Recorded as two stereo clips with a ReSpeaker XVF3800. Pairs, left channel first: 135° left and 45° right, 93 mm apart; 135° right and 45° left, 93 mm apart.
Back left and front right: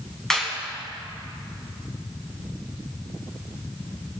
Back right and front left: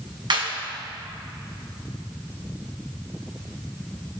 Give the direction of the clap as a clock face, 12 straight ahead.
10 o'clock.